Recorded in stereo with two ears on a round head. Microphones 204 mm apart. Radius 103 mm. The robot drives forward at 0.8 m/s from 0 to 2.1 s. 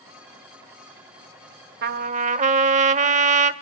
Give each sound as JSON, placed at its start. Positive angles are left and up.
{"t": 1.8, "sound": "a trumpet", "side_deg": -45, "distance_m": 0.6}